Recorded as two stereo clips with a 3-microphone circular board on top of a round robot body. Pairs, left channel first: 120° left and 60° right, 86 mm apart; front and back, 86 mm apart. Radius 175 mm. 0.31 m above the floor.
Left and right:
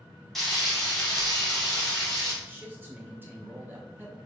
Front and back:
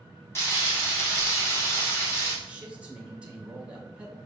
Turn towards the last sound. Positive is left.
turn(degrees=-110)